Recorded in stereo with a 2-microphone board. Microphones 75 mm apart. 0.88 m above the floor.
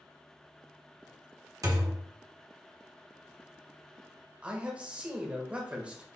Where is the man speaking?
15° right (ahead or behind), 0.9 m.